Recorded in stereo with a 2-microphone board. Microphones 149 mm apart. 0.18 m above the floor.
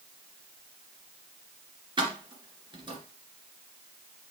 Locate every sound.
2.0 s keys jangling: 30° right (ahead or behind), 2 m